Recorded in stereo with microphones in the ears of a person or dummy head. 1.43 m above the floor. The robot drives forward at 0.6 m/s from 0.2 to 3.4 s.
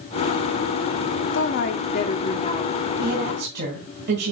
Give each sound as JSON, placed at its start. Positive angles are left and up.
{"t": 1.3, "sound": "a woman speaking", "side_deg": 70, "distance_m": 0.7}
{"t": 3.0, "sound": "a woman speaking", "side_deg": -60, "distance_m": 1.6}